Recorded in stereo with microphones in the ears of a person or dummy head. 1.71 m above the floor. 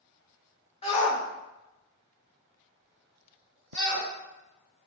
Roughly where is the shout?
Left.